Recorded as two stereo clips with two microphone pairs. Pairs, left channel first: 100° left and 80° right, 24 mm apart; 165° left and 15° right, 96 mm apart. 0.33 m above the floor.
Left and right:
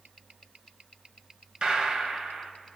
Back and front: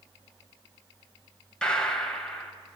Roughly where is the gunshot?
Behind right.